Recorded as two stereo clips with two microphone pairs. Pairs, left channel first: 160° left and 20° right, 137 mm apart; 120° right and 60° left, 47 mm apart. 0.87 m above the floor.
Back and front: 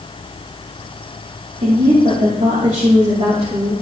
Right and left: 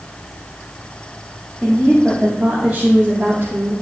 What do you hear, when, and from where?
1.6 s a woman speaking: 30° right, 2 m; by 3.7 s 30° left, 2.5 m